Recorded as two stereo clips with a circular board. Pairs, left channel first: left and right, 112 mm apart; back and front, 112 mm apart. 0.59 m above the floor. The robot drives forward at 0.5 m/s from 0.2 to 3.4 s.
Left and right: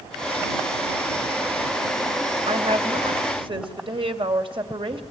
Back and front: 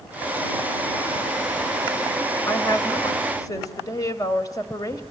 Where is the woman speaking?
115° right, 2.5 m; by 5.0 s 125° right, 2.5 m.